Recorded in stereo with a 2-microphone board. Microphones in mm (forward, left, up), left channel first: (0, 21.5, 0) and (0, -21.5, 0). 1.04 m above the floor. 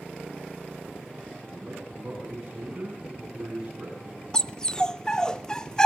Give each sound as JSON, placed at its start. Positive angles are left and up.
{"t": 1.5, "sound": "a man speaking", "side_deg": -25, "distance_m": 8.0}
{"t": 4.3, "sound": "a dog barking", "side_deg": 15, "distance_m": 0.6}